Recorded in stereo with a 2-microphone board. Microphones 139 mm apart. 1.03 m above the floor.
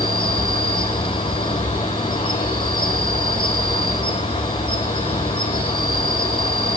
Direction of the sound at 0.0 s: 35° left (ahead or behind).